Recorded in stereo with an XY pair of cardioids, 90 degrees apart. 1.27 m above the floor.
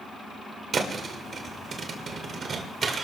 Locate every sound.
0.7 s a thud: 55° right, 2 m